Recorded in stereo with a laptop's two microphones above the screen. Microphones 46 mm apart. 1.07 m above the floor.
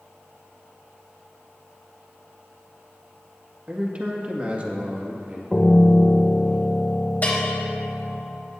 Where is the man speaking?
30° right (ahead or behind), 1.7 m.